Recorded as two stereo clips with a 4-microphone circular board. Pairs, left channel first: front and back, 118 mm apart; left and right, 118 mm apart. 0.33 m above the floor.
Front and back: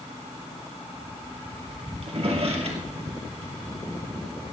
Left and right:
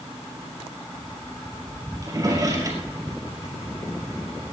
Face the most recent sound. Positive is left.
turn(degrees=-145)